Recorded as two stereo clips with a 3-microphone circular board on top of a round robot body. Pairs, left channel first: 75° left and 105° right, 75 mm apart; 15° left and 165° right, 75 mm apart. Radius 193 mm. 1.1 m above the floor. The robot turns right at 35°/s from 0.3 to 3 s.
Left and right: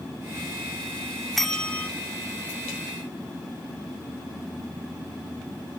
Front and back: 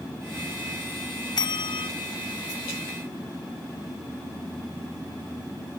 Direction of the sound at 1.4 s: 15° right.